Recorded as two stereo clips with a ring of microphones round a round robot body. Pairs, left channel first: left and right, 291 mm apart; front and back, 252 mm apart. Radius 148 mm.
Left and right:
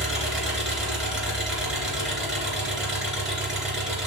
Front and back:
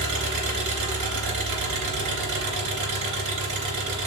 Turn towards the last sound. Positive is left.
turn(degrees=180)